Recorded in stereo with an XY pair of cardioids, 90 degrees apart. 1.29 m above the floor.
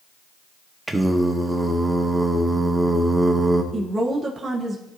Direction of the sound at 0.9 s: 15° right.